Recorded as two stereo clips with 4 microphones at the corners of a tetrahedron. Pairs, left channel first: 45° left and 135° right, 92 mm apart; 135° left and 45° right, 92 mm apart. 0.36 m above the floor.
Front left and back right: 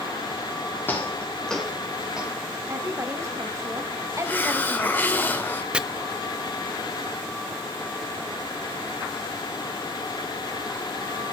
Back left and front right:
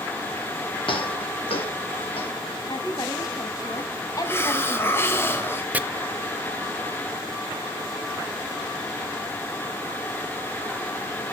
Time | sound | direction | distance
0.9 | footsteps | 115° left | 3.5 m
2.7 | a woman speaking | 175° left | 2.5 m
4.2 | a hiss | 95° left | 1.4 m
5.7 | chopping | 75° right | 0.7 m